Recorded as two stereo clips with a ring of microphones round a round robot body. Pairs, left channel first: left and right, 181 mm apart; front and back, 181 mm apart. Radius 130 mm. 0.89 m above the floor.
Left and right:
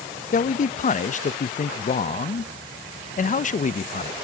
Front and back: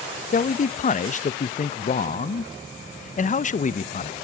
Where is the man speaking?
45° left, 0.6 m.